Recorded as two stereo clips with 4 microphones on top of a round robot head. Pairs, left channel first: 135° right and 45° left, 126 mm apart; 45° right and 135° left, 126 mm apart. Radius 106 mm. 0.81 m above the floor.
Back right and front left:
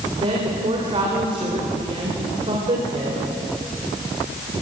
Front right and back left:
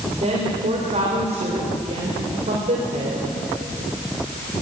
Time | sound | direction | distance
0.2 | a woman speaking | 95° left | 3.5 m